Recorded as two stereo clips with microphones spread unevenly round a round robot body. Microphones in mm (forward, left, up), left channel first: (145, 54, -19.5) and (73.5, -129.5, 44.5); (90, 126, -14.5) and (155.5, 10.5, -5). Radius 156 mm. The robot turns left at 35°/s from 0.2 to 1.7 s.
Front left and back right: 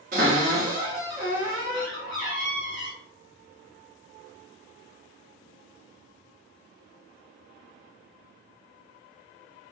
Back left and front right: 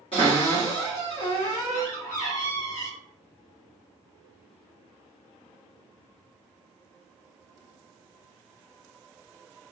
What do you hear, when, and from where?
0.1 s a cupboard door: straight behind, 0.8 m; by 2.9 s 130° left, 0.8 m